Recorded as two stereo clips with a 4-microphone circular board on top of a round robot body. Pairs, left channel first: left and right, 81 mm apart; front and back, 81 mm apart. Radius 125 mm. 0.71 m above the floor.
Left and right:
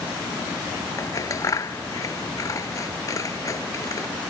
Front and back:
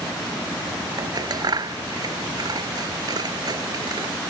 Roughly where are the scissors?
Behind left.